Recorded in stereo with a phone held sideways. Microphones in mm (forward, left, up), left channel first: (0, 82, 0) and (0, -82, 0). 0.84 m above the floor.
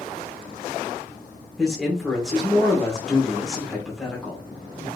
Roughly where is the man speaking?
Centre.